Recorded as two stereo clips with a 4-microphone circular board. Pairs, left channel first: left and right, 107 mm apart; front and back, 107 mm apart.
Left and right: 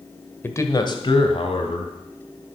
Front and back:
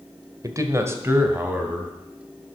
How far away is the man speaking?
About 1.3 m.